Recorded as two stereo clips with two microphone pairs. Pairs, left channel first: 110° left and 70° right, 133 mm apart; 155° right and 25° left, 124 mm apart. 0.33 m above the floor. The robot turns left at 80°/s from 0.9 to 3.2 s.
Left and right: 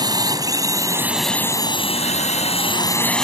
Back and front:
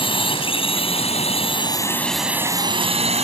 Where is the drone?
125° right; by 3.2 s 25° left.